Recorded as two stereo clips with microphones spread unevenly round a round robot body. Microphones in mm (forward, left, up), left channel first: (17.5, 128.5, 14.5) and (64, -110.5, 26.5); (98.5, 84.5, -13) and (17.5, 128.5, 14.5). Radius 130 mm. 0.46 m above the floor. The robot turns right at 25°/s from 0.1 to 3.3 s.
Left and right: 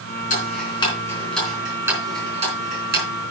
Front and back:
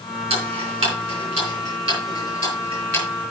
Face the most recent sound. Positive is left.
turn(degrees=-125)